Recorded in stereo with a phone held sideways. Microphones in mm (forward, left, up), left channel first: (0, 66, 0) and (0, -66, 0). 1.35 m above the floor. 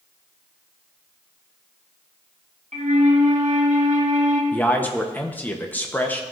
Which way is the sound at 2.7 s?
70° right (ahead or behind).